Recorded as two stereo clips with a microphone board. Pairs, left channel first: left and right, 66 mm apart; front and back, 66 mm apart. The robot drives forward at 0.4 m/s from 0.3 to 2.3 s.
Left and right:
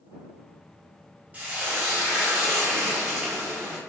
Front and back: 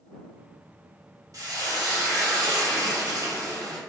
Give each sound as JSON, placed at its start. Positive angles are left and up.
{"t": 1.3, "sound": "frying", "azimuth_deg": -155, "distance_m": 0.7}